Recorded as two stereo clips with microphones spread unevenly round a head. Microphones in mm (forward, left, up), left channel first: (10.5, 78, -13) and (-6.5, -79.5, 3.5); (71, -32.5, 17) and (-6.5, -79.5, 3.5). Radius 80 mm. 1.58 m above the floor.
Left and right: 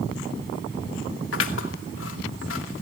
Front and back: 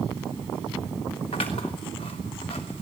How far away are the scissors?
About 2.5 m.